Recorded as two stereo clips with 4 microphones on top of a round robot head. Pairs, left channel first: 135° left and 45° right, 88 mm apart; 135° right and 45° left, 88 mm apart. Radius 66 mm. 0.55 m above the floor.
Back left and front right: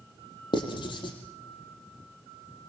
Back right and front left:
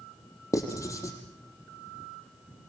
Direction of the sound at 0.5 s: 170° left.